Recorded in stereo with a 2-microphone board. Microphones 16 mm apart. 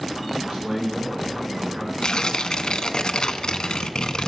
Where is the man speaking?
60° right (ahead or behind), 2 m.